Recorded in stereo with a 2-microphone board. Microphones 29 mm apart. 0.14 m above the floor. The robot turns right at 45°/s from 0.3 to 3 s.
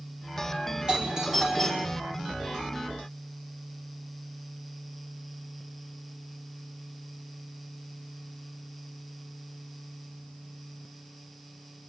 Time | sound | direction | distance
0.9 | a doorbell | 40° right | 4.5 m